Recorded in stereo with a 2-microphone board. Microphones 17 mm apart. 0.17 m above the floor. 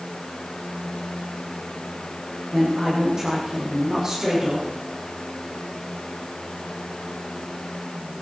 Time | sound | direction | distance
2.5 | a woman speaking | 25° right (ahead or behind) | 7 m